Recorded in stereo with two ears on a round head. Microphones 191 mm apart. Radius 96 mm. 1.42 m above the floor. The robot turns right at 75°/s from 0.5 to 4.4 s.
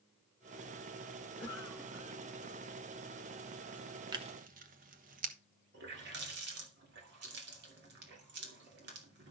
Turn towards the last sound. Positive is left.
turn(degrees=-55)  # may be behind; listen again after turning